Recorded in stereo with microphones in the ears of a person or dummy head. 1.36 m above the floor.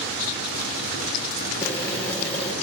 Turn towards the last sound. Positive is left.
turn(degrees=15)  # may be behind; listen again after turning